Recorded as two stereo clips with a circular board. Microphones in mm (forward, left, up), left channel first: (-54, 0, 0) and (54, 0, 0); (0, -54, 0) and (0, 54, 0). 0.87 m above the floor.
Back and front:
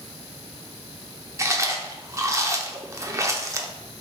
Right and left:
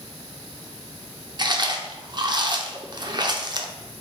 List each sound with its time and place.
1.4 s chewing: 55° left, 0.6 m